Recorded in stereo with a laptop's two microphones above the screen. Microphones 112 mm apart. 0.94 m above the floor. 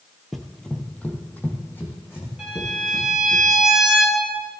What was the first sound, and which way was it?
Running footsteps, centre (ahead or behind).